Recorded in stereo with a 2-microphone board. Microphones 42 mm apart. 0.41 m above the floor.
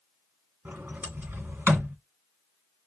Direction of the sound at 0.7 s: 55° right (ahead or behind).